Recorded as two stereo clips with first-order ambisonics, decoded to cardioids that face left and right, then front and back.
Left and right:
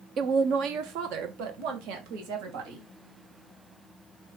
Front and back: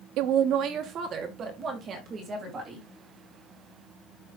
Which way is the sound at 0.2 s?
150° right.